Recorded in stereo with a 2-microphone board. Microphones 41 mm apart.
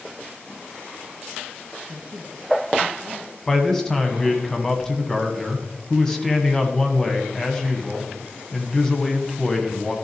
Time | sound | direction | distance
1.9 | a man speaking | 35° right (ahead or behind) | 2.5 m
3.5 | a man speaking | 15° left (ahead or behind) | 1.3 m